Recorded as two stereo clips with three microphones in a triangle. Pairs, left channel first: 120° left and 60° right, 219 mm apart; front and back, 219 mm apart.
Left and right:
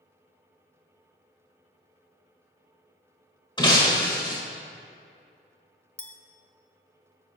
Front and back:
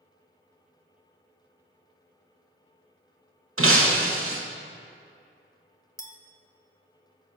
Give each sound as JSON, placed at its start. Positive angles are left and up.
{"t": 3.6, "sound": "breaking glass", "azimuth_deg": -170, "distance_m": 1.0}
{"t": 6.0, "sound": "a clink", "azimuth_deg": 45, "distance_m": 0.6}